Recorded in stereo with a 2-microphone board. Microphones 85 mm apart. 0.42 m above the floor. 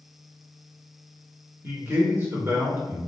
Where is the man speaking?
30° right (ahead or behind), 1.0 m.